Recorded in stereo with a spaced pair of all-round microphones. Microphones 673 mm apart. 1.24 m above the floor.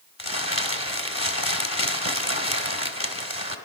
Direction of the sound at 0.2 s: 20° left (ahead or behind).